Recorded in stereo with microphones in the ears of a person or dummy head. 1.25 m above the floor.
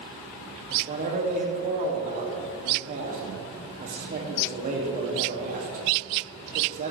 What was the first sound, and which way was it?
A man speaking, 35° right (ahead or behind).